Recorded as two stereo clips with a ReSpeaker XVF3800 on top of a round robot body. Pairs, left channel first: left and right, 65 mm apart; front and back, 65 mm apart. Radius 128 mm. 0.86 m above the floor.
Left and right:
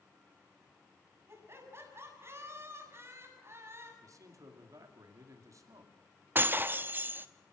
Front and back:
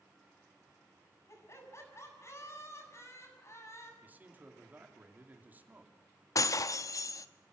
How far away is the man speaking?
About 2.5 m.